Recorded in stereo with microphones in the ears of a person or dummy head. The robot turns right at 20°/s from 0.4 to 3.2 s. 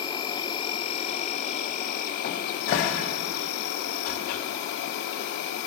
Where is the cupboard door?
50° left (ahead or behind), 0.8 m.